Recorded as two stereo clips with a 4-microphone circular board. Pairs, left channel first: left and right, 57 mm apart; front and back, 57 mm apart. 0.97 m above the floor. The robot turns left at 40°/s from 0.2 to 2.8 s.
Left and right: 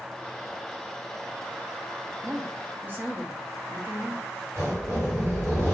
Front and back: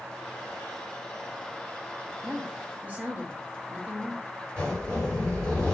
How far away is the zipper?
About 1.4 m.